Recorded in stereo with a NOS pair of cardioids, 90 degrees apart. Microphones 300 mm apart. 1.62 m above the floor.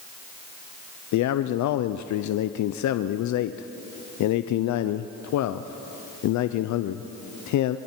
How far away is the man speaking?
About 0.7 m.